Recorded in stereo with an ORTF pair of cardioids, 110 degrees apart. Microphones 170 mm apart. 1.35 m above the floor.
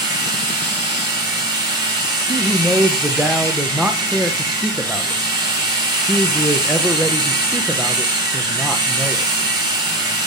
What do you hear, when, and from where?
0.0 s a machine running: 25° right, 4.5 m
2.3 s a man speaking: 5° right, 0.8 m